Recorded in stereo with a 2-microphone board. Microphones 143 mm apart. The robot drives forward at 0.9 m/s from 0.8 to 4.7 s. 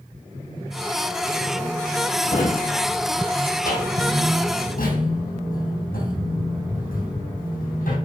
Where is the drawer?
65° left (ahead or behind), 3 m; by 8.0 s 75° left (ahead or behind), 3 m.